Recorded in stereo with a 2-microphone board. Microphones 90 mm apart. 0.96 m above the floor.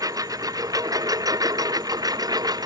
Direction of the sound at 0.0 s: 45° right (ahead or behind).